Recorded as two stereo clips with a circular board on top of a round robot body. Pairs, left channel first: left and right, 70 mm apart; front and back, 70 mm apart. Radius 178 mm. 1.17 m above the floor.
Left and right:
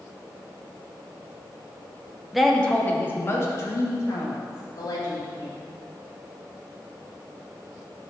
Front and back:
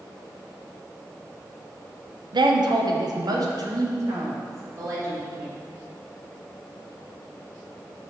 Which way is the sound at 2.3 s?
175° right.